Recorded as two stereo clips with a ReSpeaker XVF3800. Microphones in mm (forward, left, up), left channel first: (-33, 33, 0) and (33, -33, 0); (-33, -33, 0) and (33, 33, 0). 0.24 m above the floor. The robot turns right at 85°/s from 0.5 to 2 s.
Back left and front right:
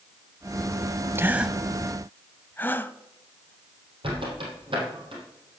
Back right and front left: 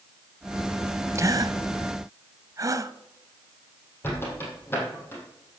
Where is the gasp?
5° left, 0.5 m; by 2.9 s 75° left, 0.5 m.